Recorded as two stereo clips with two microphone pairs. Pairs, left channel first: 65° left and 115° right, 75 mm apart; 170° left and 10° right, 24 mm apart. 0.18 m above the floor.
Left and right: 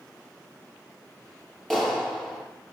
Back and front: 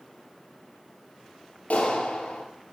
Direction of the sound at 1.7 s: 155° left.